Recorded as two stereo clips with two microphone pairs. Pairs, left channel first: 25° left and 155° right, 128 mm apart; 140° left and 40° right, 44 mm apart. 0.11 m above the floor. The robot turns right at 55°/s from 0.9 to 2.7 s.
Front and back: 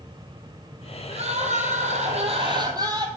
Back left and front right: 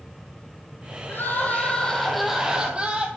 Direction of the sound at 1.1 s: 170° left.